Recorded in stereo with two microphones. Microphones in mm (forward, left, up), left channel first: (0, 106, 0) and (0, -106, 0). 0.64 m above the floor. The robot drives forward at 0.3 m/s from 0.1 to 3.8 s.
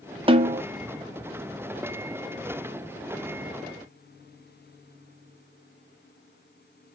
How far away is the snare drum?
About 0.5 m.